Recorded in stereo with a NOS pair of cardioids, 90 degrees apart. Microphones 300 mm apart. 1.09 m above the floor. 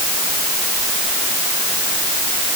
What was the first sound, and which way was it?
Only background noise.